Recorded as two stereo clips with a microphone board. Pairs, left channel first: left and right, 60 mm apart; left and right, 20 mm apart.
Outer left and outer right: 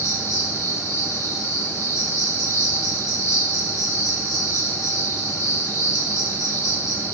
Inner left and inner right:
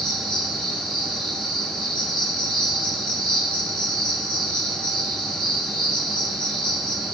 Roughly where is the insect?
Left.